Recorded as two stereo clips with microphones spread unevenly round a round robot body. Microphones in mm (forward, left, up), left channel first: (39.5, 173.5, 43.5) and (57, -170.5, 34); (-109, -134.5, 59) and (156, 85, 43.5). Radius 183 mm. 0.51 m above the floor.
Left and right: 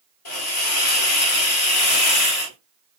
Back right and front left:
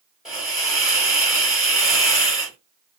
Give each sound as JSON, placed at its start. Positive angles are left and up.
{"t": 0.2, "sound": "a hiss", "azimuth_deg": 125, "distance_m": 1.9}